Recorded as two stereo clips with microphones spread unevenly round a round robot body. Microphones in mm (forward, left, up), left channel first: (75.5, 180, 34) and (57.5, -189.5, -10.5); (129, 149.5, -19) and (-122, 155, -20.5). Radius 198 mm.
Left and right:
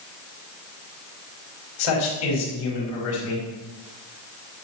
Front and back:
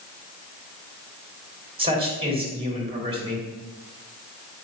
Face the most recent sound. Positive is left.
turn(degrees=110)